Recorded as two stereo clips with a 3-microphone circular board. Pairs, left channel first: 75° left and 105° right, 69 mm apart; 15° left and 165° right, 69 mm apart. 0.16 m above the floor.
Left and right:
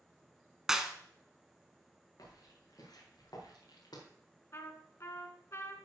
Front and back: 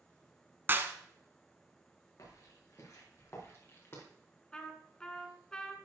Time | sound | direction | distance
0.7 | a clap | straight behind | 1.0 m
2.2 | footsteps | 50° left | 6 m
4.5 | a trumpet | 90° left | 1.5 m